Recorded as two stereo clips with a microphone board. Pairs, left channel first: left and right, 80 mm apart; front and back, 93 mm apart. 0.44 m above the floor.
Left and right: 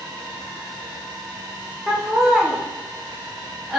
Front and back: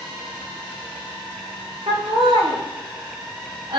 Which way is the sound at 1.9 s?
Straight behind.